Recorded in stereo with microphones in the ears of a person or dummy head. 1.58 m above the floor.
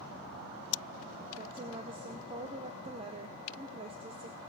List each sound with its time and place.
1.3 s a woman speaking: 30° right (ahead or behind), 0.8 m